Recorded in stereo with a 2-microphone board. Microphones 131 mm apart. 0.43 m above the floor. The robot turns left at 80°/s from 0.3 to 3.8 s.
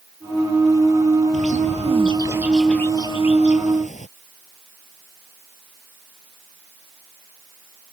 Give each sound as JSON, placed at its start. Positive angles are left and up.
{"t": 1.3, "sound": "a bird", "azimuth_deg": -80}